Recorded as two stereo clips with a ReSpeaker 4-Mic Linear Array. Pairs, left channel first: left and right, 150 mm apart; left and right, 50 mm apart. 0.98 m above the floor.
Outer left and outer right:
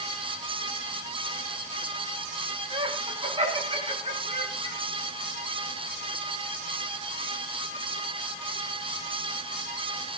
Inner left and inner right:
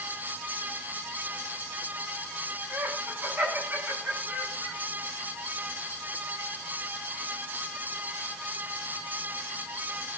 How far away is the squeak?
No squeak in this recording.